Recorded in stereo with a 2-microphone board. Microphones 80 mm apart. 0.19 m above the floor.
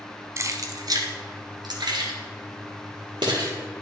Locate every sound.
0.4 s keys jangling: 40° right (ahead or behind), 0.8 m; by 3.5 s 65° right (ahead or behind), 3 m